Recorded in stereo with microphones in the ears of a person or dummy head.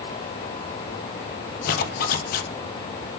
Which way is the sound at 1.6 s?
60° left (ahead or behind).